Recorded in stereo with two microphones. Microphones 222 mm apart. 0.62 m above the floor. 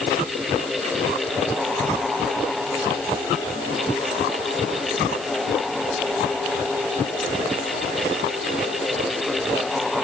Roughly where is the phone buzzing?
I don't hear a phone buzzing.